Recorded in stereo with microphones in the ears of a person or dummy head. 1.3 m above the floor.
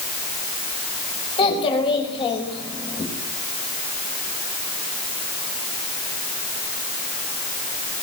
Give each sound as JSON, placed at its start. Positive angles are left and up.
{"t": 1.4, "sound": "a child speaking", "side_deg": 25, "distance_m": 4.0}